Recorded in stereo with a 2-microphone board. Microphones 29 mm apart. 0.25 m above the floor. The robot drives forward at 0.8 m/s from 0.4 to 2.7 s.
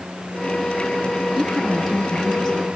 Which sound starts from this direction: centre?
A woman speaking, at 1.3 s.